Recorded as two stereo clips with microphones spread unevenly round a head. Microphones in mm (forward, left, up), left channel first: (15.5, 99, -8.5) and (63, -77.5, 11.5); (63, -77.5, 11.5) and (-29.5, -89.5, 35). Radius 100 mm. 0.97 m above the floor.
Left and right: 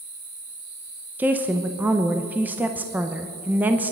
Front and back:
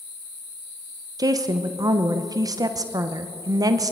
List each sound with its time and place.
1.2 s a woman speaking: 160° right, 0.8 m